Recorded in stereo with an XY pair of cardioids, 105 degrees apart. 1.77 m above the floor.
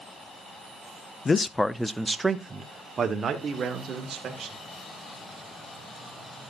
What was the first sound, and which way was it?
A man speaking, 30° left.